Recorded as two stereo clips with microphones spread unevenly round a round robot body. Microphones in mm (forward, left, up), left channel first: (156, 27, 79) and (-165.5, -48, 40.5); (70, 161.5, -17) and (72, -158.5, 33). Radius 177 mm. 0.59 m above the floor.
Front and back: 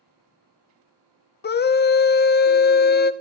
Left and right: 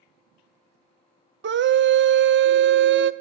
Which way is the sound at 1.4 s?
40° right.